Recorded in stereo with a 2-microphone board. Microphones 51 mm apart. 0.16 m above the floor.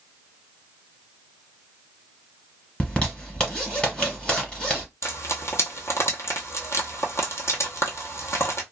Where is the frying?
65° left (ahead or behind), 0.9 m.